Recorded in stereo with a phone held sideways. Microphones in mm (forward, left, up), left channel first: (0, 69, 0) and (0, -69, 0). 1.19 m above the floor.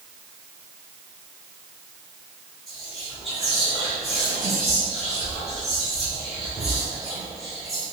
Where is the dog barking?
No dog barking in this recording.